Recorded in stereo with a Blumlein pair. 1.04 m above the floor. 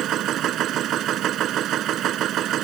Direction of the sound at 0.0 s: 30° right.